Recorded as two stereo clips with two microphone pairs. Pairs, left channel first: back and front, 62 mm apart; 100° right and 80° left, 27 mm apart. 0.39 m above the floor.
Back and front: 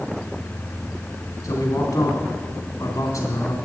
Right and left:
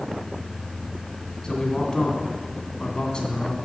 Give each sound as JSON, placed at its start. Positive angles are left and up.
{"t": 1.4, "sound": "a man speaking", "azimuth_deg": -155, "distance_m": 3.0}